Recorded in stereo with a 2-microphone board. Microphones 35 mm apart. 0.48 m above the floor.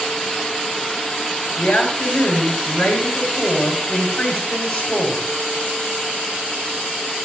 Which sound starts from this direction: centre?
A woman speaking, at 1.6 s.